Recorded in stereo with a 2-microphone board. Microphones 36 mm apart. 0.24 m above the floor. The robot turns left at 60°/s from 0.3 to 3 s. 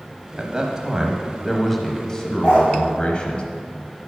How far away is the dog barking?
About 3 m.